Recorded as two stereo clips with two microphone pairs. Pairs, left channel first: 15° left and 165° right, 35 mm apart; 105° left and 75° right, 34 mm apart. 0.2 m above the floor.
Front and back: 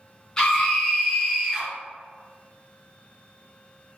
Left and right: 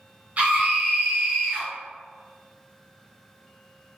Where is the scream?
50° right, 1.5 m; by 1.7 s 85° right, 1.9 m.